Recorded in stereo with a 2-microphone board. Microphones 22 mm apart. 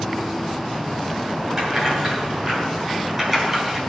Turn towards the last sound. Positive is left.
turn(degrees=-15)  # may be behind; listen again after turning